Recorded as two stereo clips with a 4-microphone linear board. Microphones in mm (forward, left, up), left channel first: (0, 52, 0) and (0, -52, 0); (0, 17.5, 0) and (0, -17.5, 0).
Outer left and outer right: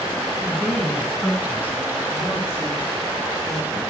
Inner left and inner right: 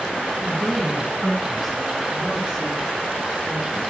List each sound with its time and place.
0.4 s a woman speaking: centre (ahead or behind), 8.5 m; by 3.8 s 30° right (ahead or behind), 7.5 m